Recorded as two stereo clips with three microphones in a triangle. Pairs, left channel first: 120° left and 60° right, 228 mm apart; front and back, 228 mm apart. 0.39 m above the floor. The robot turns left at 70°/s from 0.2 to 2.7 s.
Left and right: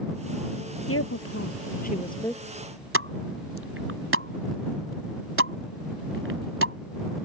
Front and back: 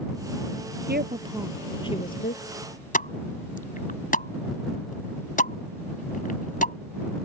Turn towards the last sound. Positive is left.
turn(degrees=-50)